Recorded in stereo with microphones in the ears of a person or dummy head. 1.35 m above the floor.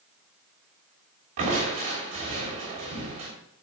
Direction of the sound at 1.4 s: 35° right (ahead or behind).